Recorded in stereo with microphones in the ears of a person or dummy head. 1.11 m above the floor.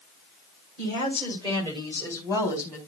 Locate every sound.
0.8 s a woman speaking: 40° right (ahead or behind), 2.5 m; by 2.8 s 10° right (ahead or behind), 1.5 m